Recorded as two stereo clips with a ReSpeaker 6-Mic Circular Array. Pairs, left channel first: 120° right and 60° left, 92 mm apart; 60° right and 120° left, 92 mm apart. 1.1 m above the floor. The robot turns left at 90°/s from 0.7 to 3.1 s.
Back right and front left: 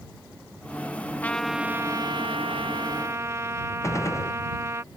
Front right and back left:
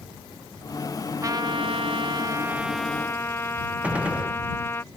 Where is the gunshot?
165° right.